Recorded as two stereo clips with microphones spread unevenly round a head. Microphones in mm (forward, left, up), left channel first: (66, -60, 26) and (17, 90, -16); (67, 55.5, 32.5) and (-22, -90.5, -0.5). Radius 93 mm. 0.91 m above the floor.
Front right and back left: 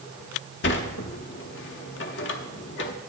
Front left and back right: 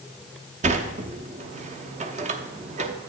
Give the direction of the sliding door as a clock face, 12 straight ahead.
2 o'clock.